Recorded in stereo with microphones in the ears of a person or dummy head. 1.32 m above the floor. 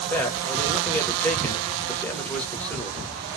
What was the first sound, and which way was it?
A man speaking, 10° left (ahead or behind).